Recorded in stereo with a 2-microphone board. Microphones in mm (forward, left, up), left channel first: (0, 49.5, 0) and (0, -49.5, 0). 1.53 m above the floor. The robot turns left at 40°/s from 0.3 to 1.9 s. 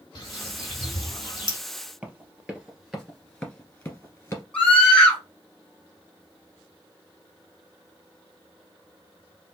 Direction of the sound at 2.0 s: 15° right (ahead or behind).